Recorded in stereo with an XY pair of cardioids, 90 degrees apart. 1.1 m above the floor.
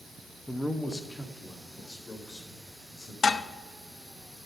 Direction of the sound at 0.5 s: 5° left.